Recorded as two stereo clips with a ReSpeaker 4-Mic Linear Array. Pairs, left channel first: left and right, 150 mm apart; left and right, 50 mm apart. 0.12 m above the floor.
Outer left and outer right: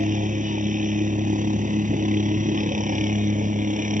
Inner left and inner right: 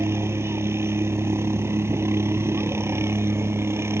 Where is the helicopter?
60° right (ahead or behind).